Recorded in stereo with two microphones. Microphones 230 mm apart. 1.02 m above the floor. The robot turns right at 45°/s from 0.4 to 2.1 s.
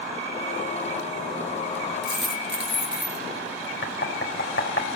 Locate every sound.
2.0 s a dropped coin: 50° right (ahead or behind), 4.5 m
3.8 s knocking: 60° left (ahead or behind), 4.5 m